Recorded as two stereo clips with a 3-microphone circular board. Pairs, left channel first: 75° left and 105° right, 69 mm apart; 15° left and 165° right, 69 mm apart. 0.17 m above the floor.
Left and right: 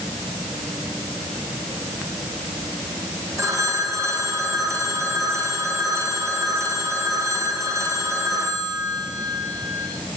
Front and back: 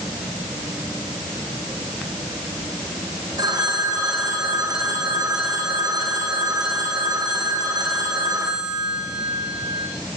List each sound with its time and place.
3.4 s a phone ringing: 145° right, 7 m